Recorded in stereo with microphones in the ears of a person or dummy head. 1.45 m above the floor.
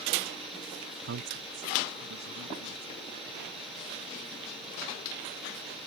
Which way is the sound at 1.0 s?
50° right (ahead or behind).